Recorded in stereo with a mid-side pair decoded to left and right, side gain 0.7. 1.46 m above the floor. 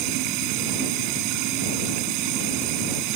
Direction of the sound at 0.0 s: 70° right.